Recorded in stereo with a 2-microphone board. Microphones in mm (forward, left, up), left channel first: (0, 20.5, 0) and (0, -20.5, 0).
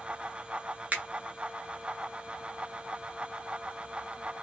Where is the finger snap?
40° right (ahead or behind), 0.7 m.